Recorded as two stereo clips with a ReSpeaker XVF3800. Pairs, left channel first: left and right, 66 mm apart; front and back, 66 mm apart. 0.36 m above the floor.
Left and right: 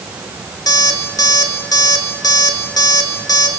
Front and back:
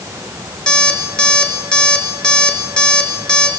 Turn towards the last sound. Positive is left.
turn(degrees=75)